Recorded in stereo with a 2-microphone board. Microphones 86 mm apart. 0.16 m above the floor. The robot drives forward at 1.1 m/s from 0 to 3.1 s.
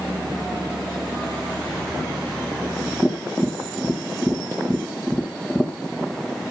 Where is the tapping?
5° left (ahead or behind), 3 m.